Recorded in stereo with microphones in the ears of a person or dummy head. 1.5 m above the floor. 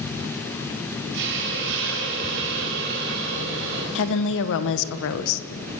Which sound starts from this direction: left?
A woman speaking, at 4.0 s.